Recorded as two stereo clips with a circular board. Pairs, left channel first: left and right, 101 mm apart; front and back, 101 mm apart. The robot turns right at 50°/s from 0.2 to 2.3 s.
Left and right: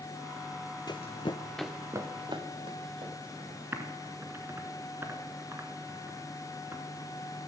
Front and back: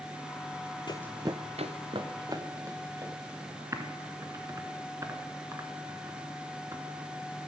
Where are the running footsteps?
40° left, 0.6 m; by 4.2 s 120° right, 5 m.